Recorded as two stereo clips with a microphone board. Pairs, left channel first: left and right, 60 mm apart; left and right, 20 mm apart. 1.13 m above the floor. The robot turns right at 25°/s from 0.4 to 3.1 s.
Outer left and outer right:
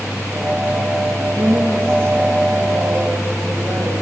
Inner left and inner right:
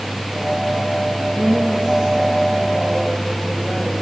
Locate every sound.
1.2 s a woman speaking: 135° right, 2 m; by 4.0 s 85° right, 2 m